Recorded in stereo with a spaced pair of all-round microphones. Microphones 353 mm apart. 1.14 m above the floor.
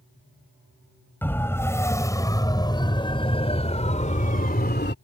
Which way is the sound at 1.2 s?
5° left (ahead or behind).